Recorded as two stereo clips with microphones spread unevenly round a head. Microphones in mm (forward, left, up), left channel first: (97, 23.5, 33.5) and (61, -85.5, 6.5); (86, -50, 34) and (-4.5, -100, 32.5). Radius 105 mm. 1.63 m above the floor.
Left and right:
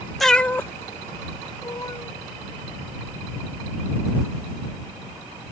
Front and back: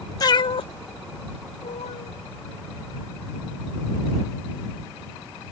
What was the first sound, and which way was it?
A cat meowing, 5° right.